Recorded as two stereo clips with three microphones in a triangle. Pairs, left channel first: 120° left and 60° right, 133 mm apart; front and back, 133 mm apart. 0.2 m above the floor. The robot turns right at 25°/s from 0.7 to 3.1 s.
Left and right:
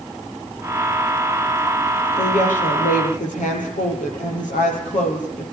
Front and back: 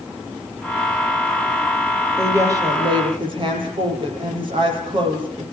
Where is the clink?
No clink in this recording.